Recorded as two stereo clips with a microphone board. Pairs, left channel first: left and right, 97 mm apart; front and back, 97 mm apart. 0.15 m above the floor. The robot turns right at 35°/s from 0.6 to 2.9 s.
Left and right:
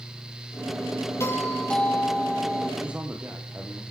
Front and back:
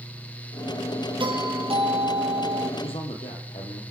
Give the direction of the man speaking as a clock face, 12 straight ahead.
1 o'clock.